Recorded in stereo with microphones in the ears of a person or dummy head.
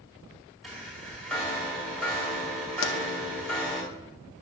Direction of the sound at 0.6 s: 5° left (ahead or behind).